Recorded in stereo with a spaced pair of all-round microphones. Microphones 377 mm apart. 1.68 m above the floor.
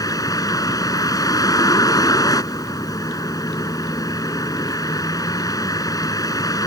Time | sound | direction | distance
0.0 | a vehicle | 10° left (ahead or behind) | ?